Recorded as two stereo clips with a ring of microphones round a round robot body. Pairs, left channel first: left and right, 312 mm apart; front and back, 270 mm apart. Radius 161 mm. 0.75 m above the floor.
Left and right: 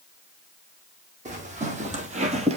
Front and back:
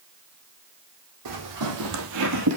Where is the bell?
No bell in this recording.